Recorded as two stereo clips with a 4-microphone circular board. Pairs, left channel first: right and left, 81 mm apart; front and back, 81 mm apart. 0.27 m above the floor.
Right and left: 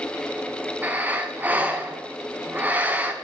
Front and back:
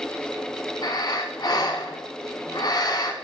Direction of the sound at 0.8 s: 25° left.